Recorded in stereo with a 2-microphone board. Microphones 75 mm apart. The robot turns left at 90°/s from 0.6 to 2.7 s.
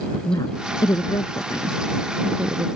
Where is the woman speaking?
55° left (ahead or behind); by 2.7 s 60° right (ahead or behind).